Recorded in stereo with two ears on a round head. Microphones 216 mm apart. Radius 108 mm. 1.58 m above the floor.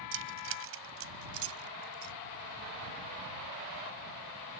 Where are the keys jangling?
55° right (ahead or behind); by 2.1 s 70° right (ahead or behind).